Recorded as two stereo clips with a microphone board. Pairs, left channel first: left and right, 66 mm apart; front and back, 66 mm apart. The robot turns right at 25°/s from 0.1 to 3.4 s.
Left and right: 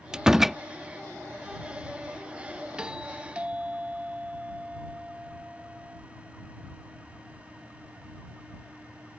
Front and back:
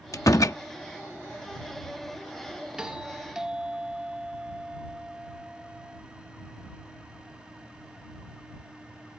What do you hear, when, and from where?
0.1 s a door slam: 15° right; by 0.6 s 5° right
2.8 s a doorbell: 135° right; by 6.0 s 120° right